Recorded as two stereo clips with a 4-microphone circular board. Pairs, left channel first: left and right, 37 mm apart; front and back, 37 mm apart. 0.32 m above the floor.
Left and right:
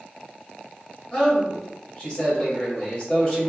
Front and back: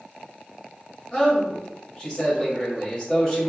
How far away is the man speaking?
About 1.8 m.